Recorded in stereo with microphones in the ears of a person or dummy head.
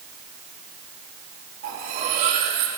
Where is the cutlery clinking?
50° right (ahead or behind), 4.5 m.